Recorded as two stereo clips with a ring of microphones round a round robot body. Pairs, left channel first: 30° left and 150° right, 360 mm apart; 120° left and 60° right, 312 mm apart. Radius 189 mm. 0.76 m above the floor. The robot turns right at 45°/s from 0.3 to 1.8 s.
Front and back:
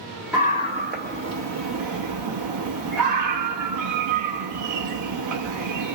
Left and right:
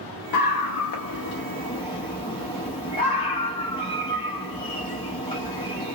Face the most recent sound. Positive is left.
turn(degrees=-170)